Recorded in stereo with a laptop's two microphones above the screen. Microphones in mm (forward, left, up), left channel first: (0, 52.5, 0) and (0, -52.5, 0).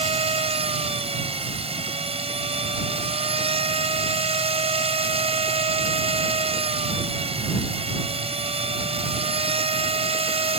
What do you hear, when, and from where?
0.0 s a machine running: 75° right (ahead or behind)